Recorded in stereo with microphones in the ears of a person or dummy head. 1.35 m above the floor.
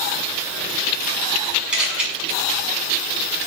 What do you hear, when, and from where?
1.7 s a camera shutter: 10° right (ahead or behind), 6 m